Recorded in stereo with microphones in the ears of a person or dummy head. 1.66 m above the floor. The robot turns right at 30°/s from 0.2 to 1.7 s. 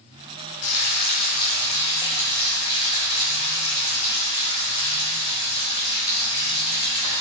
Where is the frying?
120° left, 1.1 m; by 7.2 s 150° left, 1.1 m.